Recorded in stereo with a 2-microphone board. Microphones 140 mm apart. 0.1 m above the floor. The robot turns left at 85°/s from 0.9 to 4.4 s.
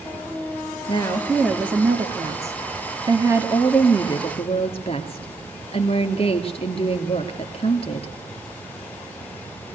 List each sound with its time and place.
0.9 s a woman speaking: 50° left, 1.7 m; by 8.1 s 115° left, 1.7 m